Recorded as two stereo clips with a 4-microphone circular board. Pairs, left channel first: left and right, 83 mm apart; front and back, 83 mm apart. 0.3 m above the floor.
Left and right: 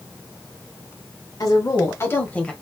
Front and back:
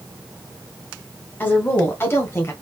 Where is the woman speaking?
60° left, 2.5 m; by 2.5 s 20° left, 1.5 m.